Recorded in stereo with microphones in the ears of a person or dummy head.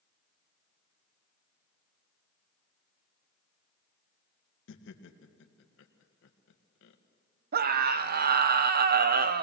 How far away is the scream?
About 0.9 m.